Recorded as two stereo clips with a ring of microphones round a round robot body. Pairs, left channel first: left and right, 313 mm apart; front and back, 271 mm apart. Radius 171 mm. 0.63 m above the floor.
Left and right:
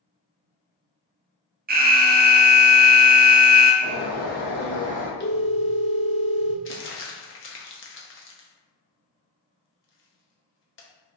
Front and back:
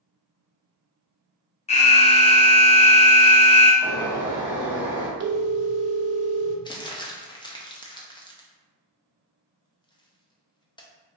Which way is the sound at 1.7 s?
50° right.